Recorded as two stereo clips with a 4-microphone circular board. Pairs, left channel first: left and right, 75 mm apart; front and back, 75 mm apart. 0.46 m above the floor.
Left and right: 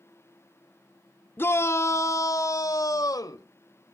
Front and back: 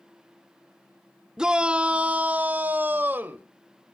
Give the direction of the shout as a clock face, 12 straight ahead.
8 o'clock.